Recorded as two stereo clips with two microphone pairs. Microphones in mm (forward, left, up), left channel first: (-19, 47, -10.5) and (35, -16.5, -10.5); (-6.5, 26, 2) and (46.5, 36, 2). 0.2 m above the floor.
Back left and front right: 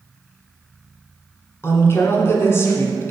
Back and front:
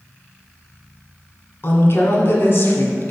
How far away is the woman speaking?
About 1.9 m.